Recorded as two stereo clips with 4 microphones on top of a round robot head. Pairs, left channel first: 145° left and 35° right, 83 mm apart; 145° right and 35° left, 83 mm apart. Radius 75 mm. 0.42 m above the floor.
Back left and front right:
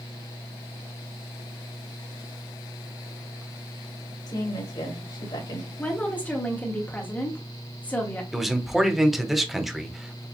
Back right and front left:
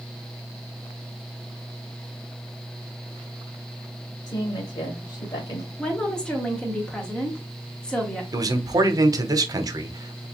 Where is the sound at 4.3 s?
175° left, 2.5 m.